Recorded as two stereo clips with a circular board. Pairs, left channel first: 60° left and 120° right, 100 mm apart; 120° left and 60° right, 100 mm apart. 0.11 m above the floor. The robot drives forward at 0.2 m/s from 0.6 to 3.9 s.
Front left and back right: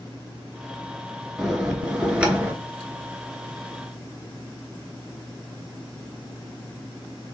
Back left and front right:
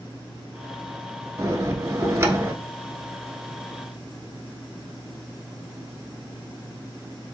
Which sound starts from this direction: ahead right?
A bell, at 1.4 s.